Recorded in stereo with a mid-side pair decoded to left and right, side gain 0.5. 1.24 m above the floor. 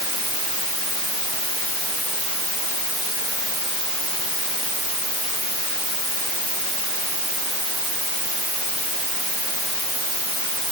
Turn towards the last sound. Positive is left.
No sound to turn to.